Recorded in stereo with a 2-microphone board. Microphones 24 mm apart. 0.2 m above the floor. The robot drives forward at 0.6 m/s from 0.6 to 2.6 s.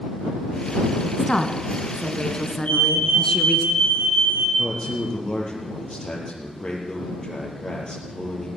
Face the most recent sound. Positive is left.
turn(degrees=30)  # may be behind; listen again after turning